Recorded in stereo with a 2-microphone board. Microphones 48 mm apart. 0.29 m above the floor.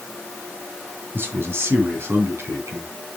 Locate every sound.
1.1 s a man speaking: 55° right (ahead or behind), 2.5 m; by 2.9 s 70° right (ahead or behind), 3 m